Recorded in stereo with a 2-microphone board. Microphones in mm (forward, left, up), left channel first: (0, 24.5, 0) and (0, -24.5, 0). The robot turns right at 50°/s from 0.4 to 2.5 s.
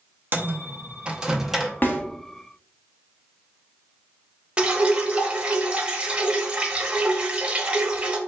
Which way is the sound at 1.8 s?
40° left (ahead or behind).